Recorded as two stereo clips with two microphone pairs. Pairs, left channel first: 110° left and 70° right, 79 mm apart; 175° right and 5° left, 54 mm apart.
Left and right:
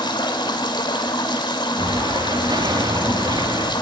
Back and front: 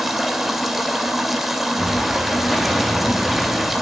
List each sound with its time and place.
0.0 s running water: 90° left, 2.0 m
1.8 s an explosion: 85° right, 2 m